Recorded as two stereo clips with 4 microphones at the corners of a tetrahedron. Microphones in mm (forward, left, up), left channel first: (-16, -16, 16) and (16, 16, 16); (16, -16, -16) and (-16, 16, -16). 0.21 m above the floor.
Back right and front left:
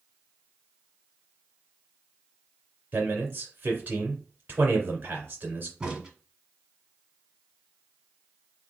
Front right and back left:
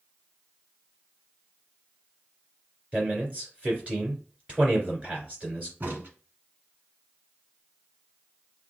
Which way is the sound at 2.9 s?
85° left.